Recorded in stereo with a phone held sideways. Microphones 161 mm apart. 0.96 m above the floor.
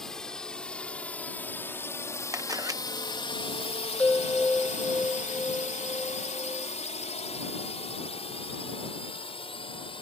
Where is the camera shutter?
20° right (ahead or behind).